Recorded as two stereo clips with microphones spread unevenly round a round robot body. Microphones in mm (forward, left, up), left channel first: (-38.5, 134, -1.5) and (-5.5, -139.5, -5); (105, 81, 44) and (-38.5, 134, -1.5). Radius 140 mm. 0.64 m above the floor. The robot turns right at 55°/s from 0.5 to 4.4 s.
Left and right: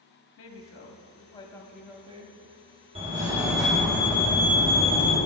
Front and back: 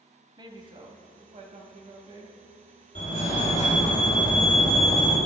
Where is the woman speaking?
120° left, 0.9 m; by 2.4 s 140° right, 0.9 m.